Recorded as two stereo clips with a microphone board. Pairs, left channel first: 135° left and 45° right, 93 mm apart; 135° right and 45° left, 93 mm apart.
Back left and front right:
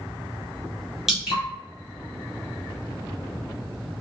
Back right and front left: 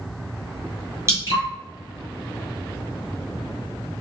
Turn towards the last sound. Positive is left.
turn(degrees=35)